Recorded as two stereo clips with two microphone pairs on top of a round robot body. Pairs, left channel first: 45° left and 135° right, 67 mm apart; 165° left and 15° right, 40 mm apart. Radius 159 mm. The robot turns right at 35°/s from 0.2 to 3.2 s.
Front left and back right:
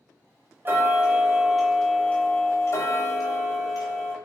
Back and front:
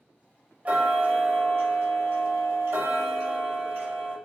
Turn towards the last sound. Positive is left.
turn(degrees=15)